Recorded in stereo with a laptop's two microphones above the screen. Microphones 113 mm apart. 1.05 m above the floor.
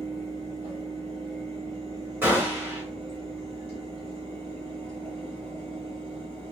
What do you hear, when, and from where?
0.0 s a fan: 65° right (ahead or behind), 1.4 m
2.2 s a gunshot: 20° right (ahead or behind), 1.2 m